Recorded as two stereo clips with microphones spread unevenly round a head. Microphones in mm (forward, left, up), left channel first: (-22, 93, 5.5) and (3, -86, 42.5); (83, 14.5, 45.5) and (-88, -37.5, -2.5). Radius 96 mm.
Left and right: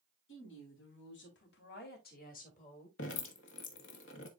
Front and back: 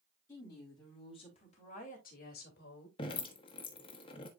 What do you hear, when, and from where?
0.3 s a woman speaking: 90° left, 3.5 m; by 2.9 s 45° left, 2.5 m
3.0 s dripping: 70° left, 1.3 m